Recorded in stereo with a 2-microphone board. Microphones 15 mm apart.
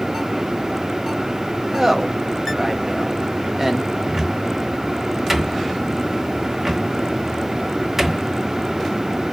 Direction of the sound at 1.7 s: 25° right (ahead or behind).